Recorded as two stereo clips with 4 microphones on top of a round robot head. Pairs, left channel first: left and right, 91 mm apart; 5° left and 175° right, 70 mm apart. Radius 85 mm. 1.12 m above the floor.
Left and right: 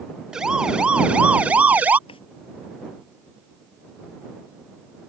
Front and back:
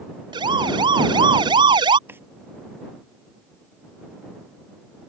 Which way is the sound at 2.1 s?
125° left.